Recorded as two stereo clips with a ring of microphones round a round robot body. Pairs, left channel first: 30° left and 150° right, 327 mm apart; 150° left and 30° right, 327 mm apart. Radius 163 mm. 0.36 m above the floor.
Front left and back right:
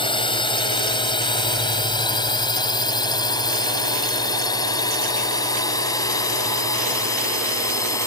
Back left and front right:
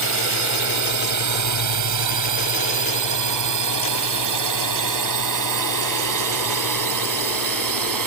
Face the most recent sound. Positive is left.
turn(degrees=-50)